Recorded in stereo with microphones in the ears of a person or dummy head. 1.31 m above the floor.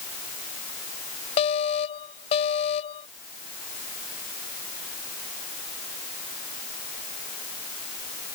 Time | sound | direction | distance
1.4 | an alarm | 35° left (ahead or behind) | ?